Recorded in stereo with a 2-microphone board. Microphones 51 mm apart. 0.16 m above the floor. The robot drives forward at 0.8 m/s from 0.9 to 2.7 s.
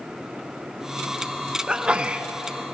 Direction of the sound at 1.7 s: 20° right (ahead or behind).